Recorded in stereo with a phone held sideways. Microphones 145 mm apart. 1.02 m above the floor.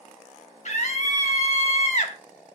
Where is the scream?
60° left (ahead or behind), 2.0 m.